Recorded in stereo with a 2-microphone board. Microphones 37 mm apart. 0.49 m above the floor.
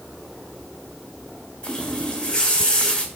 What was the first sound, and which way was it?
A running tap, 20° left (ahead or behind).